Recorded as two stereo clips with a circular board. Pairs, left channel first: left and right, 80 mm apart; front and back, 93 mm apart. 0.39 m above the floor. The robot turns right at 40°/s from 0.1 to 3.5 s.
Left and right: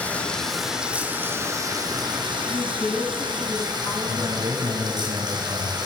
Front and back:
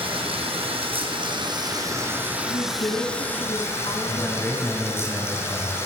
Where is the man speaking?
70° right, 6.5 m.